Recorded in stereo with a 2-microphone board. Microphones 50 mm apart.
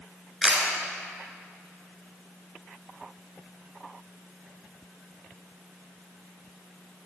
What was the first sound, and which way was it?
A camera shutter, 10° right (ahead or behind).